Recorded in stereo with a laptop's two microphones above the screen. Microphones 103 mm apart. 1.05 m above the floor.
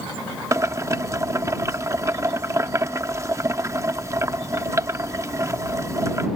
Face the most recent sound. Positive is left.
turn(degrees=-30)  # may be behind; listen again after turning